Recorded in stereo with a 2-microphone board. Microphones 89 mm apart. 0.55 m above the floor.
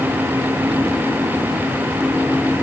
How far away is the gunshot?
I don't hear a gunshot.